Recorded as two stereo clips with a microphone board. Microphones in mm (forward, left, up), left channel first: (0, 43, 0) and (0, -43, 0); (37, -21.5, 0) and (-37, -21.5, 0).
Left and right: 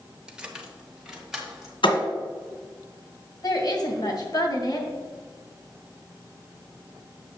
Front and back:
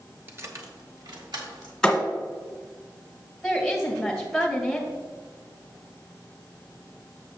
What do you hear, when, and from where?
0.3 s keys jangling: 155° right, 0.8 m; by 1.7 s 175° right, 2 m
1.8 s a thud: 85° left, 1.6 m
3.4 s a woman speaking: 90° left, 2 m